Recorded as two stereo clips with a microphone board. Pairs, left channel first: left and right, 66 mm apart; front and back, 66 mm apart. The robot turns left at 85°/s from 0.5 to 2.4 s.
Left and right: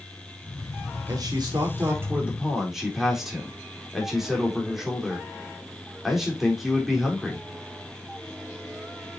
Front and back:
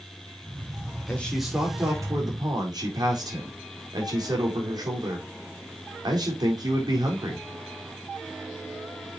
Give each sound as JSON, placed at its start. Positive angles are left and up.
{"t": 1.1, "sound": "a man speaking", "azimuth_deg": -65, "distance_m": 4.0}